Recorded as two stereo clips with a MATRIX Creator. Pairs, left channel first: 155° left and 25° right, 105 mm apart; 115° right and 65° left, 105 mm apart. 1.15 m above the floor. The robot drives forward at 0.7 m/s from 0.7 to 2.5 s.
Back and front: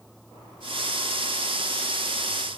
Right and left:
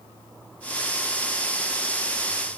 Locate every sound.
Only background noise.